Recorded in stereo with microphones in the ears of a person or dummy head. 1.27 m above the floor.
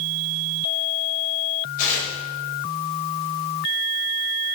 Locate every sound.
1.8 s tearing paper: 45° left (ahead or behind), 5.5 m